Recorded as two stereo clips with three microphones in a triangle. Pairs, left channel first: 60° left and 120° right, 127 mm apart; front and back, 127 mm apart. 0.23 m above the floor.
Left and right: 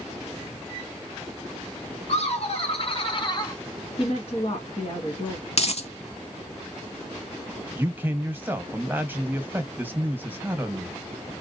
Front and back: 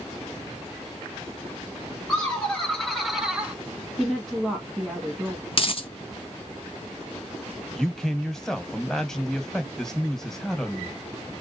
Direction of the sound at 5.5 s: 35° left.